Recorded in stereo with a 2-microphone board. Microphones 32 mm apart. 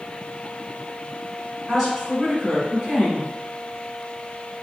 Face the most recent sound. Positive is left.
turn(degrees=0)  # may be behind; listen again after turning